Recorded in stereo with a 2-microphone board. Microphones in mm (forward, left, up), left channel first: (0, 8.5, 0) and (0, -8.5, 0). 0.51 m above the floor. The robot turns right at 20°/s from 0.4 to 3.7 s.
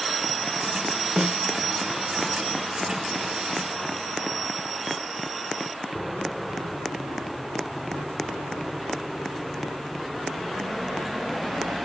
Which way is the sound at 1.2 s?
45° right (ahead or behind).